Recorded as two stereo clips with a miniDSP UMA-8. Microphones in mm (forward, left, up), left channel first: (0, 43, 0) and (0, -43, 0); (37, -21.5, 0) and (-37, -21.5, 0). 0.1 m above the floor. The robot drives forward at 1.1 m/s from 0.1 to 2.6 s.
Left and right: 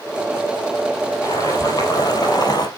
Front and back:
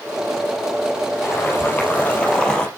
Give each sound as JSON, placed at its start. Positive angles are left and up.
{"t": 1.2, "sound": "boiling", "azimuth_deg": 50, "distance_m": 3.5}